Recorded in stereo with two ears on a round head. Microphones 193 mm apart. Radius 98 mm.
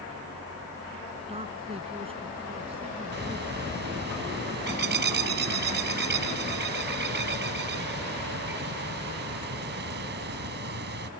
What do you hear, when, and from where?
1.3 s a man speaking: 25° right (ahead or behind)
3.1 s a bird: 55° right (ahead or behind)